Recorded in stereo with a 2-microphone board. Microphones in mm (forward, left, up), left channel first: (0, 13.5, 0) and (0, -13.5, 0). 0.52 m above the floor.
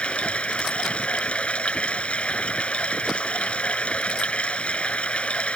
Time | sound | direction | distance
0.0 | running water | 50° left (ahead or behind) | ?